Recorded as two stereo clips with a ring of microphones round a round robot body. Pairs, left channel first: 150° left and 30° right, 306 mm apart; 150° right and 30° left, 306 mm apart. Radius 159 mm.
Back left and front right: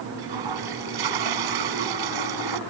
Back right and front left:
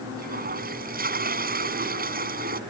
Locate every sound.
0.2 s a toilet flushing: 35° right